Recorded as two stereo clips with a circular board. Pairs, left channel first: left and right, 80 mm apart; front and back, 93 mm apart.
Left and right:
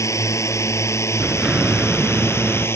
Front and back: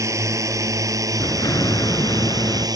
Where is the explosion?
15° right.